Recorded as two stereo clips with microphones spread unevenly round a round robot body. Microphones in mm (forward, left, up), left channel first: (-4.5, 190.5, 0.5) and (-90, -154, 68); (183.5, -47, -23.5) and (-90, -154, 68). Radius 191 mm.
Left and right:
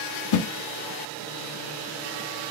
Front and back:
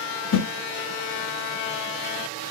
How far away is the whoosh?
About 1.4 m.